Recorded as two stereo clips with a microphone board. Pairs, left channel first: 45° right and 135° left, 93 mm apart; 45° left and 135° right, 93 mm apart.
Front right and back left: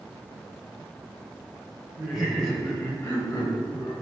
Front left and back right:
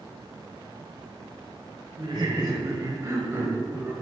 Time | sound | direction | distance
2.0 | laughter | 145° right | 1.5 m